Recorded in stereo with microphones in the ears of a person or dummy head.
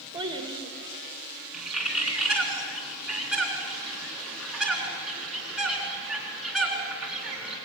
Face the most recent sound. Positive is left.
turn(degrees=-5)  # may be behind; listen again after turning